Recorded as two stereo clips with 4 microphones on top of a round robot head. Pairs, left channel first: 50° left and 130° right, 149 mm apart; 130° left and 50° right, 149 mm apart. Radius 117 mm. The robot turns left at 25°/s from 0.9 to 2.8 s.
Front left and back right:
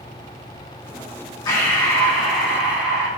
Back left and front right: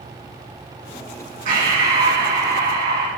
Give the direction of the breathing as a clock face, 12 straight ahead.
1 o'clock.